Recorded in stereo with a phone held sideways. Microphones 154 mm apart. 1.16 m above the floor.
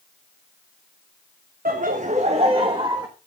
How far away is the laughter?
About 0.9 m.